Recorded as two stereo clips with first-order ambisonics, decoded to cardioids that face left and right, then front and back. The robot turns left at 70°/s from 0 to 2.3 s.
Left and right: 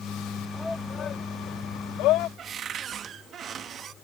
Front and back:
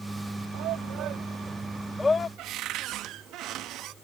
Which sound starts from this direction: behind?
A shout, at 0.5 s.